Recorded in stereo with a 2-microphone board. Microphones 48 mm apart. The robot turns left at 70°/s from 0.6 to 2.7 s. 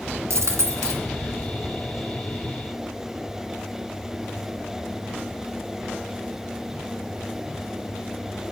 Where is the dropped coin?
70° right (ahead or behind), 1.7 m; by 1.0 s 75° right (ahead or behind), 1.7 m.